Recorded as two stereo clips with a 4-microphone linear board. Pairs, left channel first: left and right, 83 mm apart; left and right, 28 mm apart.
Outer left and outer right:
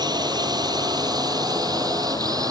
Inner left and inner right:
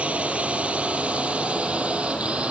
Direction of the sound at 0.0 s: 55° right (ahead or behind).